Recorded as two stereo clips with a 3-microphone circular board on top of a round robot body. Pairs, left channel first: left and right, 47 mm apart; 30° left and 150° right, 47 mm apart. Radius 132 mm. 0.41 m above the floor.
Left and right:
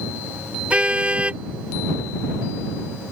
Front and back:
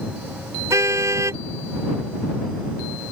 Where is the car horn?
155° right.